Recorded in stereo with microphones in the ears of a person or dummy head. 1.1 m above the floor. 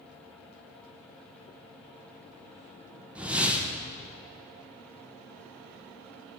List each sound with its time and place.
3.1 s a whoosh: 5° right (ahead or behind), 0.6 m